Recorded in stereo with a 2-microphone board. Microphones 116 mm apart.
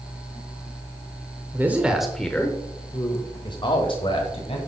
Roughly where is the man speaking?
Centre.